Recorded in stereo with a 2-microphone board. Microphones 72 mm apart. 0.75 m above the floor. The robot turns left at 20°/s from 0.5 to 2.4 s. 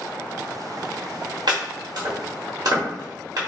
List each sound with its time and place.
1.5 s chopping: 70° right (ahead or behind), 1.3 m; by 3.4 s 50° right (ahead or behind), 1.3 m